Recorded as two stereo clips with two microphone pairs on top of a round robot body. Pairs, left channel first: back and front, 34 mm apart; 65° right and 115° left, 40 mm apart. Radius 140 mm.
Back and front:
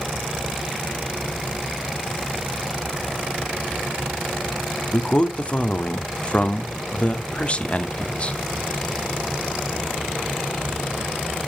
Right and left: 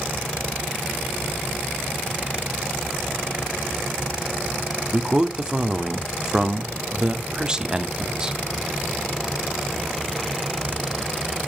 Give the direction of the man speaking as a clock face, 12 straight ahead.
6 o'clock.